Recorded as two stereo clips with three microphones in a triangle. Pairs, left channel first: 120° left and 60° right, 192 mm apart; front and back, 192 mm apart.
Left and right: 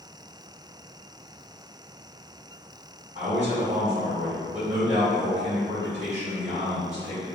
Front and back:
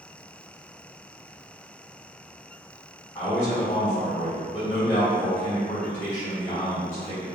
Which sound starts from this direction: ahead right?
A man speaking, at 3.1 s.